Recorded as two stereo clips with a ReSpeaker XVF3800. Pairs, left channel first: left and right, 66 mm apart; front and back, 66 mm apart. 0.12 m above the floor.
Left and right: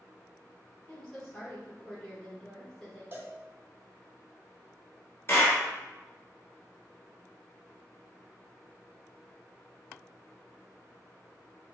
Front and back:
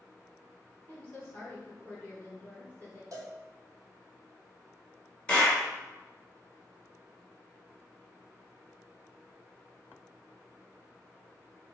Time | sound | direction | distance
0.9 | a woman speaking | 20° left | 1.6 m
3.1 | a cowbell | 145° right | 0.8 m
5.3 | a clap | 70° left | 1.3 m